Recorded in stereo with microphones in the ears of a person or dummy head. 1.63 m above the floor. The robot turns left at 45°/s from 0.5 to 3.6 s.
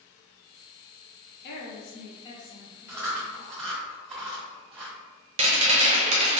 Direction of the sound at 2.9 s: 10° right (ahead or behind).